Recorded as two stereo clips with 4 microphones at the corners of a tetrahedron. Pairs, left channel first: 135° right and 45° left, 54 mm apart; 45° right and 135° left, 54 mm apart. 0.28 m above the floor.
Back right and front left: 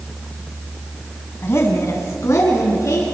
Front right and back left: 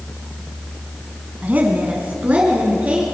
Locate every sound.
1.4 s a woman speaking: 170° right, 2.5 m; by 3.0 s 160° right, 4.5 m